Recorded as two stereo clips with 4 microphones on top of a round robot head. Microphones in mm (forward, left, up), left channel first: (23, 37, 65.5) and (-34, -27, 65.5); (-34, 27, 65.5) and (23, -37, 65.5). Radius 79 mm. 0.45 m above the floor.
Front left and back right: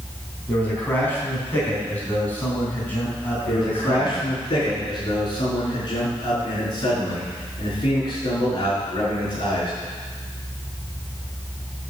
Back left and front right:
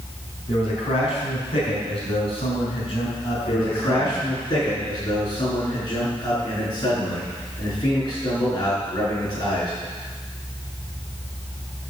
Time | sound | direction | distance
0.5 | a man speaking | 120° left | 4.5 m
3.5 | a man speaking | 85° left | 6 m